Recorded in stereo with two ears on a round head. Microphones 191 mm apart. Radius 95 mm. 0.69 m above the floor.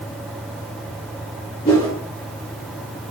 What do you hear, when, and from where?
1.6 s a whoosh: 30° left (ahead or behind), 1.8 m